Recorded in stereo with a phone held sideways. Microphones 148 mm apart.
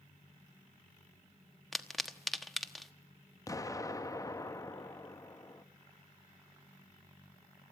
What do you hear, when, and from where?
1.7 s a pop: centre (ahead or behind), 1.2 m
3.5 s an explosion: 20° left (ahead or behind), 0.8 m